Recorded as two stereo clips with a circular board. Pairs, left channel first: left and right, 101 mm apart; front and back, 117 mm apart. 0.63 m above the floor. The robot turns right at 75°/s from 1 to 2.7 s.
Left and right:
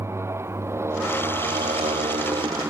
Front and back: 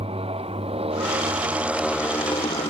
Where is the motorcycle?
155° right; by 2.7 s 25° right.